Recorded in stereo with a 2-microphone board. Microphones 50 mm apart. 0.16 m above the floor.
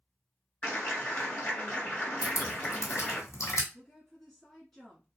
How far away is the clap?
About 1.8 m.